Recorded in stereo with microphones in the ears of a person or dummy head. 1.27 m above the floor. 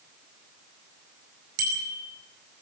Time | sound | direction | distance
1.6 | a bicycle bell | 55° right (ahead or behind) | 4.5 m